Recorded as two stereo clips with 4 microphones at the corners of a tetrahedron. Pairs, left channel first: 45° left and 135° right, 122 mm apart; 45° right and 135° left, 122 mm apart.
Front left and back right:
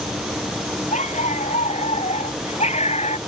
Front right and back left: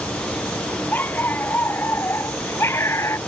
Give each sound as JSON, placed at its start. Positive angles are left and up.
{"t": 0.9, "sound": "a dog barking", "azimuth_deg": 30}